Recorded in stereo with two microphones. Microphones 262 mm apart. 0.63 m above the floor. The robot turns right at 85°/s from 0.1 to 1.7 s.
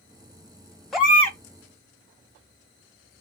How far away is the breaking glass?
I don't hear breaking glass.